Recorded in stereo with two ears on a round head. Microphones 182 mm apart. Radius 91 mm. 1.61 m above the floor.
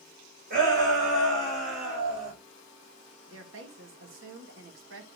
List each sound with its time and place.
0.5 s a shout: 45° right (ahead or behind), 7 m; by 2.3 s 35° right (ahead or behind), 7 m
3.3 s a woman speaking: 70° right (ahead or behind), 2 m